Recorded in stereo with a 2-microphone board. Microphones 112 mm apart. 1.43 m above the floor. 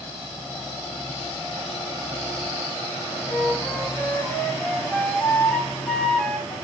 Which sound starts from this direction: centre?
A flute, at 3.3 s.